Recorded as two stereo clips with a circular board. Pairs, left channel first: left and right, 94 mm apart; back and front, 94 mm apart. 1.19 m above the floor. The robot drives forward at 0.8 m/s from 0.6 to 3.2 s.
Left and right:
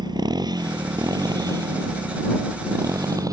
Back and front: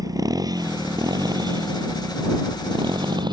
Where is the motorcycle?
50° right; by 3.3 s 40° right.